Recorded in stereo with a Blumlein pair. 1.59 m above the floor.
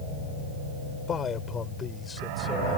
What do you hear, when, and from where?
1.1 s a man speaking: 20° left; by 2.8 s 10° left